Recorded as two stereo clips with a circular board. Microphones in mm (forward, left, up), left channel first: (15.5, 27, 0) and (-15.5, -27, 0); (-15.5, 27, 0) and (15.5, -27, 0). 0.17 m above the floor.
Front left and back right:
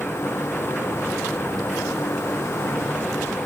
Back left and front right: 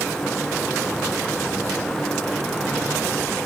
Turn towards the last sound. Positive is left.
No sound to turn to.